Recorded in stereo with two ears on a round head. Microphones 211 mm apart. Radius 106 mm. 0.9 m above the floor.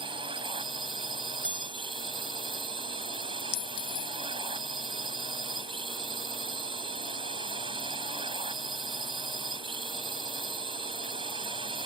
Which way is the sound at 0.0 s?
20° right (ahead or behind).